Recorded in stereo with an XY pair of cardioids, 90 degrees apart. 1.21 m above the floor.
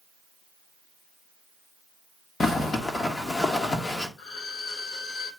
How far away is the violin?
About 3 m.